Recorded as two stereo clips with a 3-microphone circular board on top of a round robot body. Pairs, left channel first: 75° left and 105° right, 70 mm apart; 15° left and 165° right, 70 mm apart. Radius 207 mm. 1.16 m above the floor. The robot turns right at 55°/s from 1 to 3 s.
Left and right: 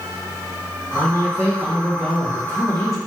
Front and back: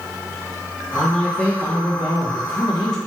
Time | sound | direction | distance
0.9 | a man speaking | 75° right | 1.2 m